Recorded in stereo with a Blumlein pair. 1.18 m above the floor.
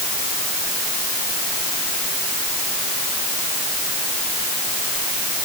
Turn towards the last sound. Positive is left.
No sound to turn to.